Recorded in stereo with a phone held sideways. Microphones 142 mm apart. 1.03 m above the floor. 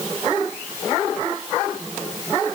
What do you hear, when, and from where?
Only background noise.